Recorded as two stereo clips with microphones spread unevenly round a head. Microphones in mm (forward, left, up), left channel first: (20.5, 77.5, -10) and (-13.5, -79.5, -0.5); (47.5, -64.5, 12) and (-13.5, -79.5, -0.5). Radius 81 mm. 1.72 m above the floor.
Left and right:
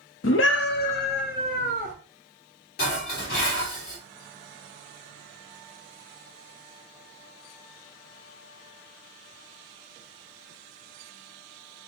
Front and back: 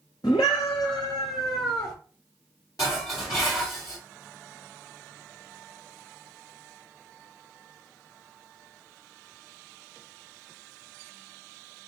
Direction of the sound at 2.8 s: 50° left.